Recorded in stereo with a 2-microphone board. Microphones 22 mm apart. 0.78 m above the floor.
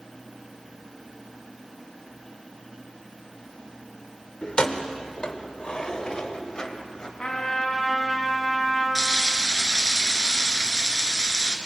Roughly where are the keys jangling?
Left.